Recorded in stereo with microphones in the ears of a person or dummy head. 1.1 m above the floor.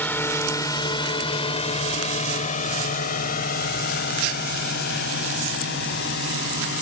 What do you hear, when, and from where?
0.0 s a drone: 5° left (ahead or behind); by 6.8 s 60° left (ahead or behind)